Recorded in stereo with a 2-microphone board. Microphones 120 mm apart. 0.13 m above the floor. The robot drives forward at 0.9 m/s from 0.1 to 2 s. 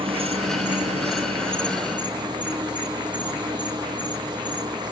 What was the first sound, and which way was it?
An insect, 50° right (ahead or behind).